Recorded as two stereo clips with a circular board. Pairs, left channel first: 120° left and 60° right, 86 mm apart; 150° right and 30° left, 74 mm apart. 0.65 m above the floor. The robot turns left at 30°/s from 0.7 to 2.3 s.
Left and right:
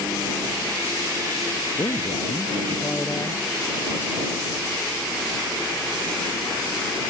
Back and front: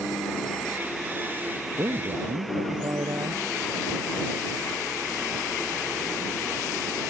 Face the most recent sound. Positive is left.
turn(degrees=60)